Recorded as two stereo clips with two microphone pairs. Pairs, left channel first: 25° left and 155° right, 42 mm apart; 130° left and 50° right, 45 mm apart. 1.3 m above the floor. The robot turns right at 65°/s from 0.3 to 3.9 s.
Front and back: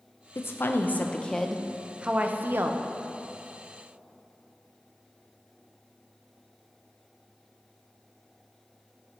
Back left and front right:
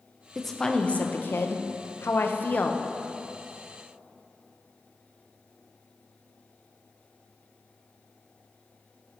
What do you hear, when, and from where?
0.3 s a woman speaking: 35° left, 0.6 m; by 2.8 s 165° right, 0.6 m